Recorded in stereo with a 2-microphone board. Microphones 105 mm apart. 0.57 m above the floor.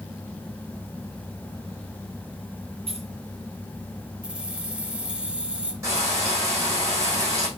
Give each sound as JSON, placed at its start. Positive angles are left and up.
{"t": 2.9, "sound": "keys jangling", "side_deg": -70, "distance_m": 3.5}
{"t": 4.2, "sound": "keys jangling", "side_deg": -10, "distance_m": 1.4}
{"t": 5.8, "sound": "frying", "side_deg": -25, "distance_m": 6.0}